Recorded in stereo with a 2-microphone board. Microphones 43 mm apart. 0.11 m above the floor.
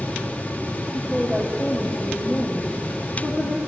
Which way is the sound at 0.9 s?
15° left (ahead or behind).